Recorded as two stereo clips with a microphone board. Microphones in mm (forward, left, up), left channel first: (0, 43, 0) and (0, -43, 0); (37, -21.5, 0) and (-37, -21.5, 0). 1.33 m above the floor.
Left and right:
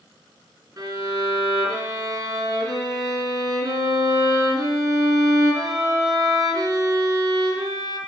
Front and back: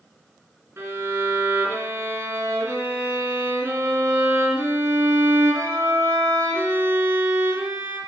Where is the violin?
125° right, 3 m.